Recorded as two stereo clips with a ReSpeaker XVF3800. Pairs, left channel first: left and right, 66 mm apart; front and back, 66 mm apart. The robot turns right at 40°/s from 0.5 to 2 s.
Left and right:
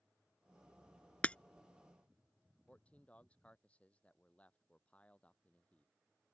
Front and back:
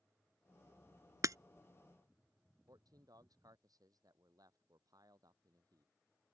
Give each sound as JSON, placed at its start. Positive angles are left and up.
{"t": 1.2, "sound": "breaking glass", "azimuth_deg": 155}
{"t": 2.7, "sound": "a man speaking", "azimuth_deg": 160}